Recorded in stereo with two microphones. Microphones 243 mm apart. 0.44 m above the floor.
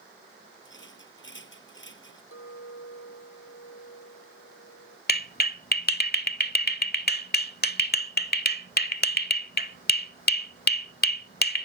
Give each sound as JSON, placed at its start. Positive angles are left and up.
{"t": 0.7, "sound": "a rattle", "side_deg": 55}
{"t": 2.3, "sound": "a clink", "side_deg": 75}
{"t": 5.1, "sound": "a clap", "side_deg": 45}